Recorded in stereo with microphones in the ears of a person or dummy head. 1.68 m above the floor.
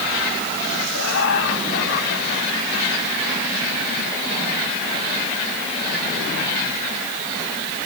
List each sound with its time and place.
0.9 s laughter: 75° left (ahead or behind), 6 m; by 3.2 s 40° left (ahead or behind), 7 m